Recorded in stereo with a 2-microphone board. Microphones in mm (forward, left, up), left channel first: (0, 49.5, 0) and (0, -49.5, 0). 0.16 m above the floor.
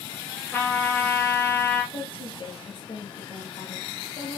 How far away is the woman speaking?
About 3 m.